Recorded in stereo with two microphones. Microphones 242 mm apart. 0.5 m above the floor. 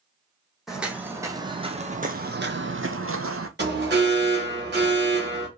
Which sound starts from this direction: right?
An alarm, at 3.6 s.